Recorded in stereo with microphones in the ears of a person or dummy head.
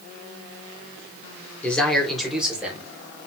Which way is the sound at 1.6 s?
5° left (ahead or behind).